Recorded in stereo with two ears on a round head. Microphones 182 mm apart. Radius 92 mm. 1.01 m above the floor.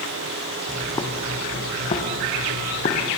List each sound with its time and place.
0.7 s footsteps: 15° left (ahead or behind), 3.5 m; by 3.1 s 40° left (ahead or behind), 4 m